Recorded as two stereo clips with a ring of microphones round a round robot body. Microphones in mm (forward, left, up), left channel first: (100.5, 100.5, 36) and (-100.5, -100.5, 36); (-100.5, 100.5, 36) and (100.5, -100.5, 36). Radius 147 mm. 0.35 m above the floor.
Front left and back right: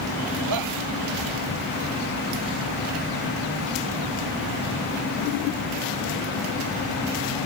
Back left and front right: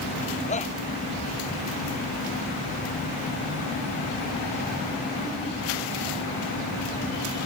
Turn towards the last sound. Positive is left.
turn(degrees=-160)